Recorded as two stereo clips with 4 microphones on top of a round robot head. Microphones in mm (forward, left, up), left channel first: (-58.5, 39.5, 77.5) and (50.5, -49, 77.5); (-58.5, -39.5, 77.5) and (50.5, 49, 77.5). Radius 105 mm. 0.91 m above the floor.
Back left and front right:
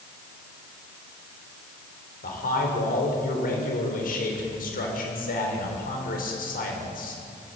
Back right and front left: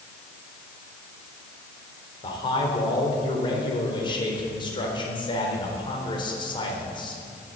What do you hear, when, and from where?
2.2 s a man speaking: 160° left, 3.5 m